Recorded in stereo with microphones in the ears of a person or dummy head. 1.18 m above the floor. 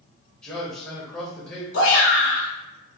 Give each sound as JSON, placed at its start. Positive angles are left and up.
{"t": 0.4, "sound": "a man speaking", "side_deg": -5, "distance_m": 0.6}
{"t": 1.7, "sound": "a shout", "side_deg": 80, "distance_m": 0.9}